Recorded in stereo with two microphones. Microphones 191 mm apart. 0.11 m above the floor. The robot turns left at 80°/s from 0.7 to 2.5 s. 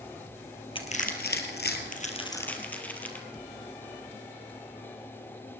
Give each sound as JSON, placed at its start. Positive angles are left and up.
{"t": 0.8, "sound": "crushing", "side_deg": 25, "distance_m": 2.0}